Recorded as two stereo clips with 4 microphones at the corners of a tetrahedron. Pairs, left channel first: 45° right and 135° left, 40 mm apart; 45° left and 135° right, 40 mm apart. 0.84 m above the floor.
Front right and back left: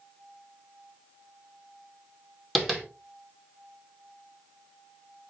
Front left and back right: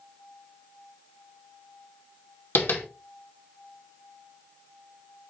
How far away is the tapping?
About 2 m.